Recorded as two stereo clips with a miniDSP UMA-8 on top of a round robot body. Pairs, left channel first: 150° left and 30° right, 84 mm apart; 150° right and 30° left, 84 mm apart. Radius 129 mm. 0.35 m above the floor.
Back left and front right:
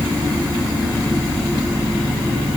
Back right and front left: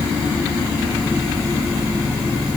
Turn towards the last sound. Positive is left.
No sound to turn to.